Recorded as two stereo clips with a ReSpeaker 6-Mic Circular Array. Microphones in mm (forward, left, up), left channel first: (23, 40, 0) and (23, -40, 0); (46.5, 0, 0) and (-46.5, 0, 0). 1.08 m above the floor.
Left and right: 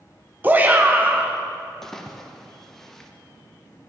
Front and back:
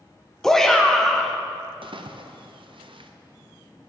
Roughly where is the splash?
Behind.